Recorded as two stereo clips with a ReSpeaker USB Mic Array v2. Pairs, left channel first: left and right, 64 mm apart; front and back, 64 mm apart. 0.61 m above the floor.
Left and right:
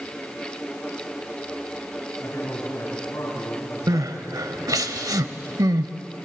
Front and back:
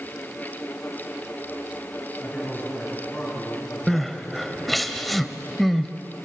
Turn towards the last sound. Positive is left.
turn(degrees=-90)